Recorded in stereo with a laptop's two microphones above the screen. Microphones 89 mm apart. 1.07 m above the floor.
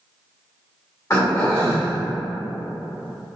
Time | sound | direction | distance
1.1 | throat clearing | 35° left (ahead or behind) | 1.6 m